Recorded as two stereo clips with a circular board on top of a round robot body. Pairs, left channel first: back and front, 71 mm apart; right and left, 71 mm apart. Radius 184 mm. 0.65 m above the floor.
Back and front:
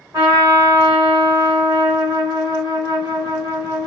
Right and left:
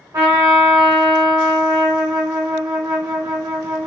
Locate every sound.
0.1 s a trumpet: 45° left, 0.6 m